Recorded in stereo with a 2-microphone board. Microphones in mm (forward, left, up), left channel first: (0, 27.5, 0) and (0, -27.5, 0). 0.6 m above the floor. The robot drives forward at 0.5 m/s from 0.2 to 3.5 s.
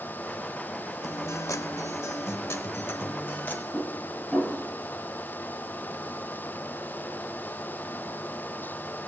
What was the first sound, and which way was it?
A guitar, 75° left (ahead or behind).